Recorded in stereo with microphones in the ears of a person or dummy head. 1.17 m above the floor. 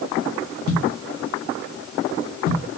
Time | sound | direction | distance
0.7 | a thud | 50° left (ahead or behind) | 0.8 m